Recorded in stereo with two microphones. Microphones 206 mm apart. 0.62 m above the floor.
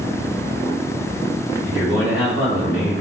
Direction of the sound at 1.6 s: 55° right (ahead or behind).